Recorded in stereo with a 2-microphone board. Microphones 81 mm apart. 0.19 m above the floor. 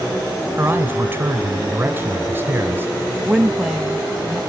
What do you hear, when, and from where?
0.6 s a man speaking: 25° right (ahead or behind), 1.7 m
3.2 s a woman speaking: 5° right (ahead or behind), 1.0 m